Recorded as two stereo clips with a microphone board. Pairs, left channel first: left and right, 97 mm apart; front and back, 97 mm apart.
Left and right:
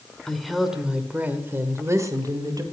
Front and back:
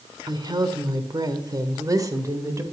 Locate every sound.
0.3 s a woman speaking: 175° left, 1.4 m; by 2.6 s 130° right, 1.7 m